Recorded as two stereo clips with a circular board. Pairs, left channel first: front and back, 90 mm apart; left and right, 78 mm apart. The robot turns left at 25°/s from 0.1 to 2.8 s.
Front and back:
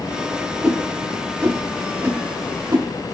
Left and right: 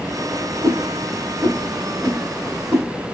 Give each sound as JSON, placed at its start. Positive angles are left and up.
{"t": 0.6, "sound": "a whoosh", "azimuth_deg": -95, "distance_m": 1.7}